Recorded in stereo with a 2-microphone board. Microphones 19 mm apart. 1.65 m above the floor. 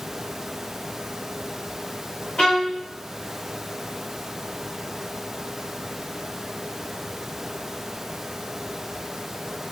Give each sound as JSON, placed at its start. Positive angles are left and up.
{"t": 2.4, "sound": "a violin", "side_deg": 60, "distance_m": 2.5}